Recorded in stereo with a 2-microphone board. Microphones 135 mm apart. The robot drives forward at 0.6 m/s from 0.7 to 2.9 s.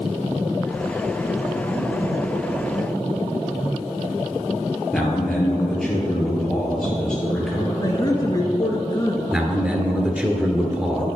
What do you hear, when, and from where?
4.9 s a man speaking: 5° left (ahead or behind), 2.5 m
7.8 s a woman speaking: 30° left (ahead or behind), 1.3 m
9.3 s a man speaking: 10° right (ahead or behind), 1.3 m